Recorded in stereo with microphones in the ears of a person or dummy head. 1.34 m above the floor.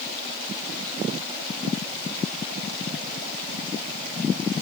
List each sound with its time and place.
Only background noise.